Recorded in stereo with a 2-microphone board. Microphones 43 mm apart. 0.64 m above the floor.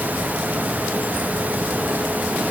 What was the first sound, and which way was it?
Only background noise.